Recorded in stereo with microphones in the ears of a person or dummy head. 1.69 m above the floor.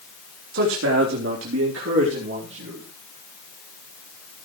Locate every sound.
0.5 s a man speaking: 70° right (ahead or behind), 3 m